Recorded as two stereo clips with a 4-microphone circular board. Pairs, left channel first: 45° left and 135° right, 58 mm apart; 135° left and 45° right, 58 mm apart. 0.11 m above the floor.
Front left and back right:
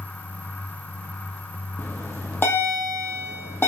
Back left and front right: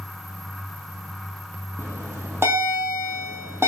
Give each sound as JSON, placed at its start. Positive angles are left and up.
{"t": 1.8, "sound": "a bell", "azimuth_deg": -5, "distance_m": 2.5}